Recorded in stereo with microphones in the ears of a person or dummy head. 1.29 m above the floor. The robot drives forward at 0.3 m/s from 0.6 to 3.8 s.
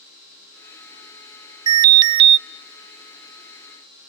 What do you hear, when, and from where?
1.7 s an alarm: 25° right (ahead or behind), 0.7 m; by 2.4 s 35° right (ahead or behind), 0.5 m